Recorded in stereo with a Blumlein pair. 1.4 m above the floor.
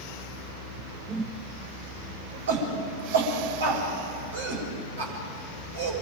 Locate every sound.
1.1 s a whoosh: 15° right, 1.0 m
2.5 s a shout: 65° right, 7 m